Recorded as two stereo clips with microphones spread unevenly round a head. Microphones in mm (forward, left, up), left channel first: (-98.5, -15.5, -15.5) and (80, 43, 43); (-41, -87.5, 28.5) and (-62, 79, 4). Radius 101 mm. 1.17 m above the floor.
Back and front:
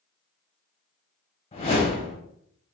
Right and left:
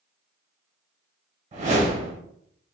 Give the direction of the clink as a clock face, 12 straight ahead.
No clink in this recording.